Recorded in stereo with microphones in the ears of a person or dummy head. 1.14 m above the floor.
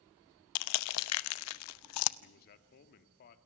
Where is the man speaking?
50° left (ahead or behind), 2 m.